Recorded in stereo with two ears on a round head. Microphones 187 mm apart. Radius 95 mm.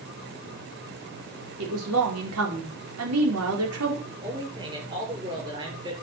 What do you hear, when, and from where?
1.6 s a woman speaking: 75° right (ahead or behind), 5 m
4.0 s a man speaking: 20° right (ahead or behind), 6.5 m